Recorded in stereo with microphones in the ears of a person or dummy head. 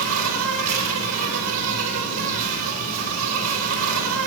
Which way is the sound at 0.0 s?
80° right.